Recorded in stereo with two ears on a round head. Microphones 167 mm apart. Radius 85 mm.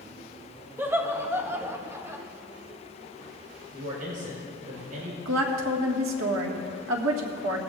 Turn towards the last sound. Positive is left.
turn(degrees=-80)